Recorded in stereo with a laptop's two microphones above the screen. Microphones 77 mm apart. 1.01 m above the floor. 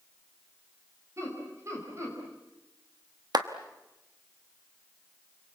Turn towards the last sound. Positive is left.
turn(degrees=-60)  # may be behind; listen again after turning